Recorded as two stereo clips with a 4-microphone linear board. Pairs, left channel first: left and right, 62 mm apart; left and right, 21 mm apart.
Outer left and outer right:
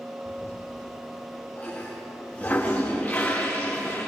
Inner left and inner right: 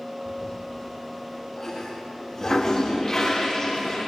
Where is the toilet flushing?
25° left (ahead or behind), 9 m.